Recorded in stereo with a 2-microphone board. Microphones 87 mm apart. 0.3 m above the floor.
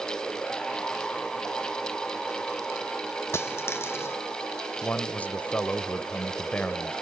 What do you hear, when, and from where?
3.3 s a dropped coin: 30° left (ahead or behind), 1.1 m
4.8 s a man speaking: 20° left (ahead or behind), 0.9 m